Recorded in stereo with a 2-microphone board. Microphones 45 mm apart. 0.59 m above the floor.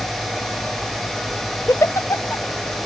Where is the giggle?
80° left, 0.6 m.